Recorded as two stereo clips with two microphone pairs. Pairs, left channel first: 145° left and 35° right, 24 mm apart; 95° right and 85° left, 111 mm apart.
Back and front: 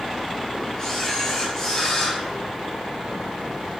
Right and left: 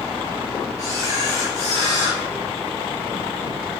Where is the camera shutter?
85° left, 4.5 m.